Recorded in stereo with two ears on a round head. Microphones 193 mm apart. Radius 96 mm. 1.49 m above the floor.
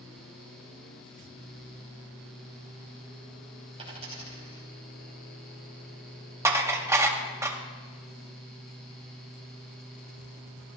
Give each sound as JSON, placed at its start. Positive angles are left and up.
{"t": 3.8, "sound": "a dropped coin", "side_deg": -30, "distance_m": 5.0}
{"t": 6.5, "sound": "dishes clattering", "side_deg": -15, "distance_m": 0.8}